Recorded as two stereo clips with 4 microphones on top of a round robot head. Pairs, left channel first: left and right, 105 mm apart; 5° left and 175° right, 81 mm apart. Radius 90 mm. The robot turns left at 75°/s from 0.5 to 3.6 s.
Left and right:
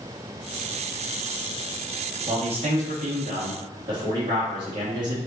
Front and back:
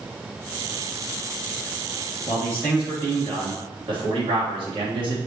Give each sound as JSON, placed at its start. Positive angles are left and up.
{"t": 2.3, "sound": "a man speaking", "azimuth_deg": -45, "distance_m": 2.5}